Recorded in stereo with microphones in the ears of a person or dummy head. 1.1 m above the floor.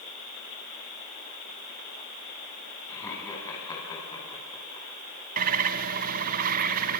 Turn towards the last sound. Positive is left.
turn(degrees=-40)  # may be behind; listen again after turning